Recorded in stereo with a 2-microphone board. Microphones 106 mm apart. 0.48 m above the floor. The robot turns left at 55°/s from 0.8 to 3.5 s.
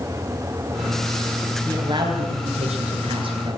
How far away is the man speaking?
About 9.5 m.